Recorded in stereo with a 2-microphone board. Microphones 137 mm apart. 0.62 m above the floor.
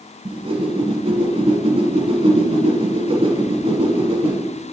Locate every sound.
0.2 s a whoosh: 45° right (ahead or behind), 1.1 m